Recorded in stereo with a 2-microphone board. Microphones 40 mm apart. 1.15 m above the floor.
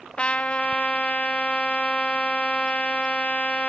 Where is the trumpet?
35° left (ahead or behind), 0.6 m.